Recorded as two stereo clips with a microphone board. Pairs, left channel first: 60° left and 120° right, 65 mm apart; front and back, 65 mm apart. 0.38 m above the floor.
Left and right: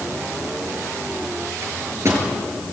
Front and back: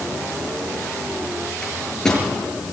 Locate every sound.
1.6 s a microwave: 80° right, 6.5 m